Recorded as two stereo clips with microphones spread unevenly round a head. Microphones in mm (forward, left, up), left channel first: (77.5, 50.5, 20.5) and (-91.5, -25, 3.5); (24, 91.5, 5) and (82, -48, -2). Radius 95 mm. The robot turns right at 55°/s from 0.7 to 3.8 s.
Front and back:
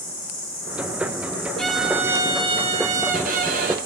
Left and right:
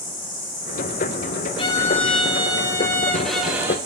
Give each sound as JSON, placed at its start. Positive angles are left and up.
{"t": 0.0, "sound": "an insect", "azimuth_deg": 85, "distance_m": 3.5}
{"t": 1.6, "sound": "a violin", "azimuth_deg": 100, "distance_m": 0.6}